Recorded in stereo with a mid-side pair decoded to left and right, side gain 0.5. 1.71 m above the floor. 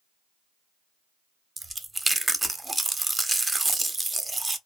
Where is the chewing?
20° right, 0.7 m.